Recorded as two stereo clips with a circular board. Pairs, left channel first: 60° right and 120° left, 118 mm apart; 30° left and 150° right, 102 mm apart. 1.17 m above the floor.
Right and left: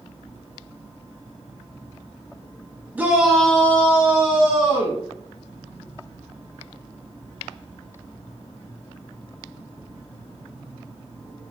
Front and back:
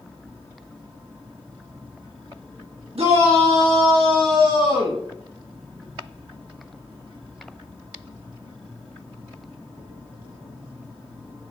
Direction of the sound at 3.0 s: 165° right.